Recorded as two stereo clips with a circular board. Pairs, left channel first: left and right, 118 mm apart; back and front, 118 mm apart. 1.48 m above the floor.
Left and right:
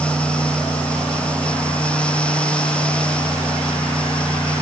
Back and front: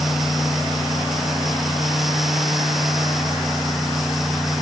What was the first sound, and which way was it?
Only background noise.